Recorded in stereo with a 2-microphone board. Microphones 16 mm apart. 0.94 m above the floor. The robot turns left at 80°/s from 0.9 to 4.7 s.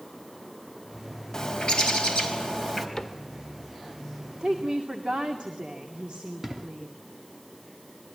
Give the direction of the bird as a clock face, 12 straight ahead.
8 o'clock.